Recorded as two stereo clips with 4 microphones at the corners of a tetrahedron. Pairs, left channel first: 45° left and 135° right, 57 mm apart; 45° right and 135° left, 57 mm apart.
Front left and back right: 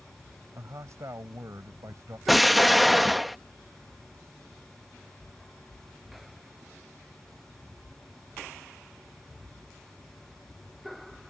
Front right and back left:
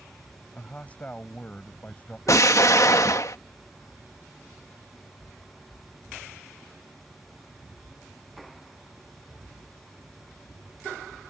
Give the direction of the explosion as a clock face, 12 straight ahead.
2 o'clock.